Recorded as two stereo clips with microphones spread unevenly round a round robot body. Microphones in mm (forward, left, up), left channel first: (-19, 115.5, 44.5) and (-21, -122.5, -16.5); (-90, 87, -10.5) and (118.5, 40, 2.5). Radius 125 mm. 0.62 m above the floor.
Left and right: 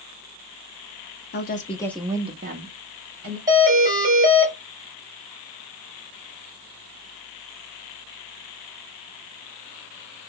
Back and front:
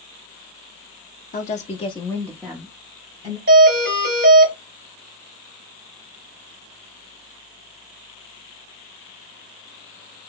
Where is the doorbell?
40° right, 2 m.